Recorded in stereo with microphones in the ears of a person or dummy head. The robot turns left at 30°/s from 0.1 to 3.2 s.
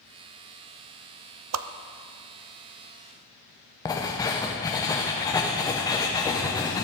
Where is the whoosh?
85° right, 0.5 m.